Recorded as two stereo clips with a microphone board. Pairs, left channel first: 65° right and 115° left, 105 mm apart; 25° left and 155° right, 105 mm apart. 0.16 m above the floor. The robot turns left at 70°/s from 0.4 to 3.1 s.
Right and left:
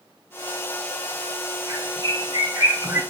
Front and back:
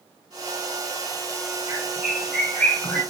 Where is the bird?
160° left, 1.9 m; by 3.0 s 65° left, 1.9 m.